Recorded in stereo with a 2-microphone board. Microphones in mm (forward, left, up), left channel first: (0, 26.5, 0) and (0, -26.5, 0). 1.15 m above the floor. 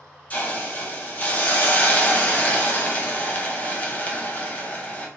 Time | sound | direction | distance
0.3 | a hiss | 30° left (ahead or behind) | 0.6 m